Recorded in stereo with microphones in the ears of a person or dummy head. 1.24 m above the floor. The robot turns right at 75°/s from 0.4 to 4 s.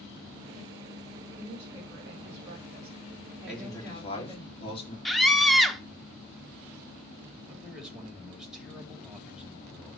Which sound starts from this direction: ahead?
A man speaking, at 3.5 s.